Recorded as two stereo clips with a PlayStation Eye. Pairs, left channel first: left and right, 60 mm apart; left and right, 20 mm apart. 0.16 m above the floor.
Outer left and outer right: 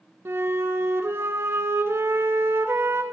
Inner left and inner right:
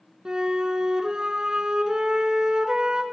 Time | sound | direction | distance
0.2 | a flute | 45° right (ahead or behind) | 0.6 m